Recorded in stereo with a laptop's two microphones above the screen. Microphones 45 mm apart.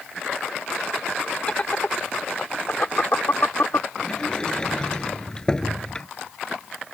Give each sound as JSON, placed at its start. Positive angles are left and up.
{"t": 1.5, "sound": "laughter", "side_deg": 25}
{"t": 4.0, "sound": "a sliding door", "side_deg": 20}